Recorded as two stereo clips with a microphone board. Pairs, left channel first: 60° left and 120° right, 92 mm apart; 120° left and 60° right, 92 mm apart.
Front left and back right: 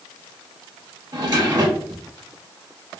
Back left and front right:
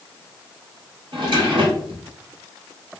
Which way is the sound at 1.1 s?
80° right.